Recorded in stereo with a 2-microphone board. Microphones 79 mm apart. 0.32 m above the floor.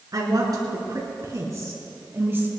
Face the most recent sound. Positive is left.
turn(degrees=-25)  # may be behind; listen again after turning